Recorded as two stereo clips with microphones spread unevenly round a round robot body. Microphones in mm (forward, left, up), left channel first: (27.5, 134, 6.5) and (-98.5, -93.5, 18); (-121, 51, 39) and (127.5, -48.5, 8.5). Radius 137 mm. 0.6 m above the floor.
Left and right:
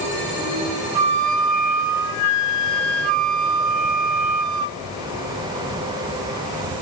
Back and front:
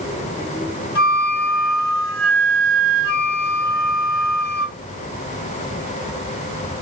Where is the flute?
145° right, 1.3 m.